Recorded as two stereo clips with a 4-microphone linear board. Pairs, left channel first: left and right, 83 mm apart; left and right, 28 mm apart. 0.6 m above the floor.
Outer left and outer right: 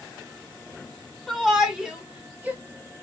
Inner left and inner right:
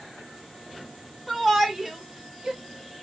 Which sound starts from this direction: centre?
A shout, at 1.3 s.